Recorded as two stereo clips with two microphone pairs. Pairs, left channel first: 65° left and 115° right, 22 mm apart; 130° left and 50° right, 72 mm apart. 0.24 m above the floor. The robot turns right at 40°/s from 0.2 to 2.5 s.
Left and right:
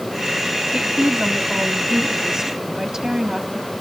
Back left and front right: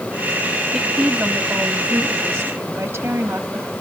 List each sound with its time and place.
0.7 s a woman speaking: 130° right, 1.3 m; by 3.7 s 60° right, 1.3 m